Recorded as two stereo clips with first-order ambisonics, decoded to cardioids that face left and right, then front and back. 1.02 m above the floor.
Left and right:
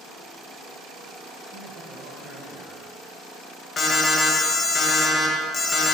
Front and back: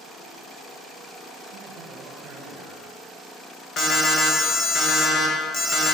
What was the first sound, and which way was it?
A man speaking, 135° right.